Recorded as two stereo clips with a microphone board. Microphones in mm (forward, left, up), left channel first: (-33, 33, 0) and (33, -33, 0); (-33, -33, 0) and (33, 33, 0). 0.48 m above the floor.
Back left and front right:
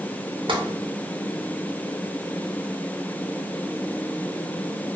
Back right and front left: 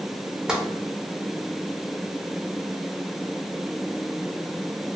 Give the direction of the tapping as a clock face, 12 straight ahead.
1 o'clock.